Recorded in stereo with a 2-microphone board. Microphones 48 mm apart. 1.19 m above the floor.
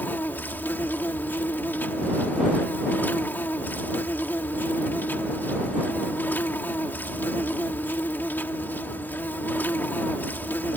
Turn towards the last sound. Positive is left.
turn(degrees=45)  # may be behind; listen again after turning